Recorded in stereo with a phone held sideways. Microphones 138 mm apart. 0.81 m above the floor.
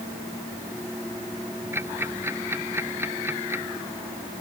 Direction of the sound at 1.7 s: 15° right (ahead or behind).